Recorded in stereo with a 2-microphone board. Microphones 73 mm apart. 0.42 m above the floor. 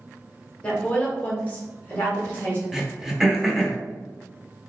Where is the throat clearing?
5° right (ahead or behind), 0.8 m.